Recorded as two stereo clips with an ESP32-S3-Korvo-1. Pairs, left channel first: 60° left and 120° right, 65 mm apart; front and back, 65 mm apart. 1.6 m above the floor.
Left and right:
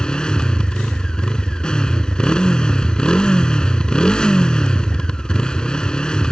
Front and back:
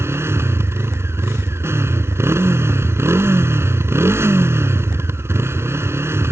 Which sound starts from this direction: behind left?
A motorcycle, at 0.0 s.